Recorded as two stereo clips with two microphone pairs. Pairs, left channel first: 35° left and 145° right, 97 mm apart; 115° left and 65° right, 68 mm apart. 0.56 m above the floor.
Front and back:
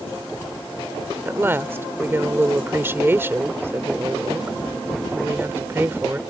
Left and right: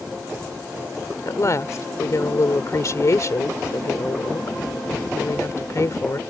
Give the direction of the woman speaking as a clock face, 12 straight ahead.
7 o'clock.